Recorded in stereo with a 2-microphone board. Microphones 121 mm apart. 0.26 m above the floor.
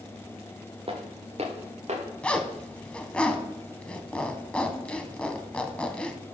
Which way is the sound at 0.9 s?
50° right (ahead or behind).